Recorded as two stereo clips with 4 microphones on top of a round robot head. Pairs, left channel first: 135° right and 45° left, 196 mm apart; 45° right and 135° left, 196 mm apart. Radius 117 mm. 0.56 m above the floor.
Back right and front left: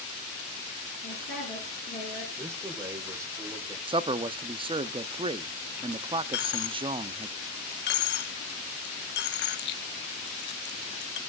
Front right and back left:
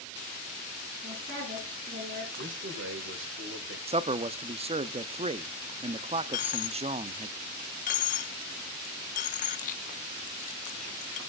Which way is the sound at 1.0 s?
175° right.